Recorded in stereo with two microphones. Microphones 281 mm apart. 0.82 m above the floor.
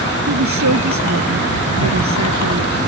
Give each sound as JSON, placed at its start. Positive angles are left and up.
{"t": 0.3, "sound": "a woman speaking", "side_deg": -90}